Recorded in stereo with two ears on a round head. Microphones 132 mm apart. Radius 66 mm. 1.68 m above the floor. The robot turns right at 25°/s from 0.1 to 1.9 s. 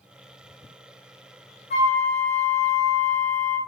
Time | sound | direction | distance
1.7 | a flute | 45° left (ahead or behind) | 1.0 m